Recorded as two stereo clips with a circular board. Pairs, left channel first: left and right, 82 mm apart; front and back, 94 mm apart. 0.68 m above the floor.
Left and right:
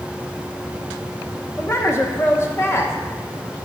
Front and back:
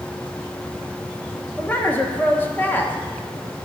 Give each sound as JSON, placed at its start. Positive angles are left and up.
{"t": 1.6, "sound": "a woman speaking", "azimuth_deg": 55, "distance_m": 0.9}